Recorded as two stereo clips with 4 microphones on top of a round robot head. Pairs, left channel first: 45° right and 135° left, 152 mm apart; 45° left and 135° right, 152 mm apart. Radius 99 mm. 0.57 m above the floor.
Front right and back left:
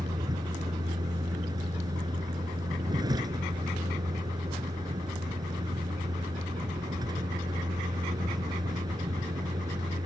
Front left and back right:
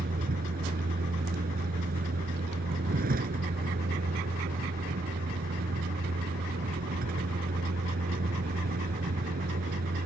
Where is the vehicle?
160° right.